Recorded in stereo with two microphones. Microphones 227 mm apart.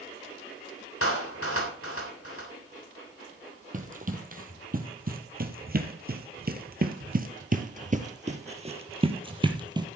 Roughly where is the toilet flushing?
No toilet flushing in this recording.